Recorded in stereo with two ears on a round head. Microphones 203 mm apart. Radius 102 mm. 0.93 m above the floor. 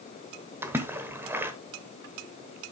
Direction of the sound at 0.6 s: 10° right (ahead or behind).